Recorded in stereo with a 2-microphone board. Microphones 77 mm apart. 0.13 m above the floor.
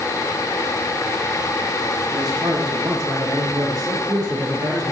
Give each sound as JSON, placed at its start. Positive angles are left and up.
{"t": 2.1, "sound": "a man speaking", "side_deg": -65, "distance_m": 6.0}